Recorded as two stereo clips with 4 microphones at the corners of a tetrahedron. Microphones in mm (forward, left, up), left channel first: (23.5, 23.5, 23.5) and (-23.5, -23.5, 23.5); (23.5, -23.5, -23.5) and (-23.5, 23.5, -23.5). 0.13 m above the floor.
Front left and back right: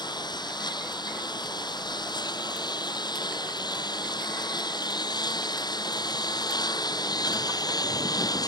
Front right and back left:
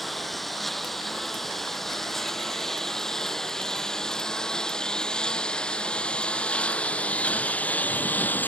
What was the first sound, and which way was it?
A lawn mower, 45° left.